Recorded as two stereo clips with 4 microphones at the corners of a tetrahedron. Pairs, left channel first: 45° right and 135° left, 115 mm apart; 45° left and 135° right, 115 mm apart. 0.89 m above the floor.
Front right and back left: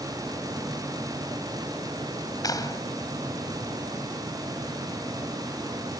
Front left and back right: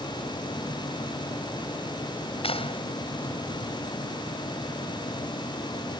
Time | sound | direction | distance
2.4 | a clap | 15° left | ?